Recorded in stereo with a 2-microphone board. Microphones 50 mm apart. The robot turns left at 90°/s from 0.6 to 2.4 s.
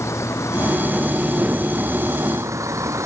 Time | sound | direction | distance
0.0 | a vehicle | 70° left (ahead or behind) | ?